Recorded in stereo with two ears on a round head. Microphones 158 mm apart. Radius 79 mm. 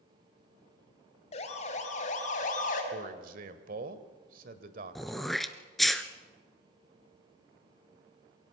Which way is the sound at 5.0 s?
Centre (ahead or behind).